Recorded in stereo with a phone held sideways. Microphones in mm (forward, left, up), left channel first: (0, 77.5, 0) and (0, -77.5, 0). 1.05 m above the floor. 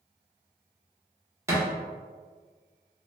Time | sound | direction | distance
1.5 | a thud | 20° right (ahead or behind) | 0.9 m